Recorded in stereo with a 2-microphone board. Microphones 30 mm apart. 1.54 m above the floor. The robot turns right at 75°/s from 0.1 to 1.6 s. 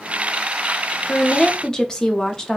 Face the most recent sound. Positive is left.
turn(degrees=160)